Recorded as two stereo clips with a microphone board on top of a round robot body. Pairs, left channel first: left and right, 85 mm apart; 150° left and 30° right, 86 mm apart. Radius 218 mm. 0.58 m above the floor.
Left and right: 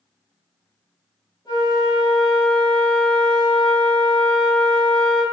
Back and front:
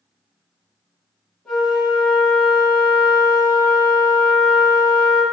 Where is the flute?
65° left, 1.5 m.